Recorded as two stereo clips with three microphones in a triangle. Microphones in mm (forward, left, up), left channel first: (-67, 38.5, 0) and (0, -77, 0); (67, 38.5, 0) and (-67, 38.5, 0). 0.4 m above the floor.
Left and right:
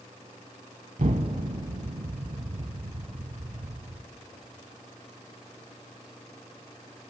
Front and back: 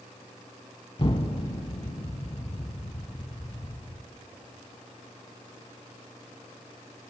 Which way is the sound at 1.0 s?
45° right.